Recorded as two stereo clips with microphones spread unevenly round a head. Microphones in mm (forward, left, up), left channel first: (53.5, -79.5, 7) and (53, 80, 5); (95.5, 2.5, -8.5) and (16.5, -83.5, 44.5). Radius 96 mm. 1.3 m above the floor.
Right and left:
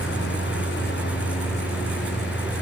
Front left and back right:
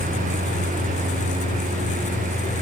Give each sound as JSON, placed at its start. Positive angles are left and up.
{"t": 0.0, "sound": "a lawn mower", "azimuth_deg": -130}